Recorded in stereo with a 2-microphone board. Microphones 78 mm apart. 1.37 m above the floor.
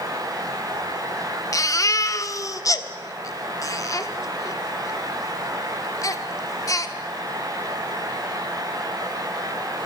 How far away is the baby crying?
About 1.3 m.